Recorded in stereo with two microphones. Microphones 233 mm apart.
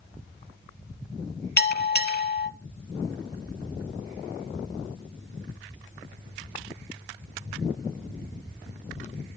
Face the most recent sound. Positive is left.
turn(degrees=45)  # may be behind; listen again after turning